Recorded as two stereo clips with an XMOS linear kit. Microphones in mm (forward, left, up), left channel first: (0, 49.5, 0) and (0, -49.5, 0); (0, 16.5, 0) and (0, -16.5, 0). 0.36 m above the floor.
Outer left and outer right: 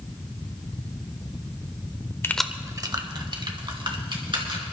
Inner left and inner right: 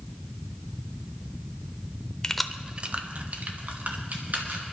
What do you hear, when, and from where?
2.2 s keys jangling: 25° left (ahead or behind), 0.6 m; by 4.6 s 60° right (ahead or behind), 3.5 m